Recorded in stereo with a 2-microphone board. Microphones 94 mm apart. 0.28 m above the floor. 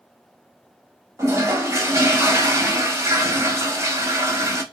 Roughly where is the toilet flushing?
Right.